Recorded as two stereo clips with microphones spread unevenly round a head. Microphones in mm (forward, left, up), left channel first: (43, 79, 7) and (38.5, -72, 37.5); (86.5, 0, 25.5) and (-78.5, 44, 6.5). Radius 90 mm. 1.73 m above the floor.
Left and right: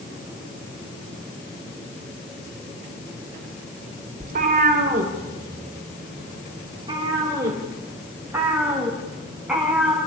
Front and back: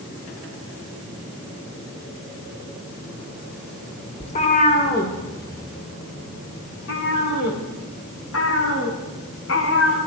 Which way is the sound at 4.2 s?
70° right.